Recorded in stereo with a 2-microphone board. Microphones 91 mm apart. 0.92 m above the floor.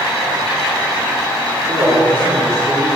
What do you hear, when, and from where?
1.7 s a man speaking: 25° left (ahead or behind), 2.5 m; by 2.9 s 30° left (ahead or behind), 3.5 m